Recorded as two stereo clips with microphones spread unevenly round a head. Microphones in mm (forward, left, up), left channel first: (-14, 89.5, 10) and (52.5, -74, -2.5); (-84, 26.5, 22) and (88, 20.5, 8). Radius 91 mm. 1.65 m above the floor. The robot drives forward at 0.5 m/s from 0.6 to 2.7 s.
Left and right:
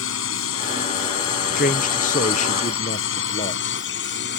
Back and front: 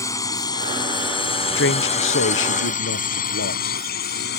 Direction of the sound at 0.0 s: 105° left.